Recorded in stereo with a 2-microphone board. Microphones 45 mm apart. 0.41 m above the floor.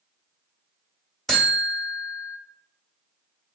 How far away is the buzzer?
About 1.3 m.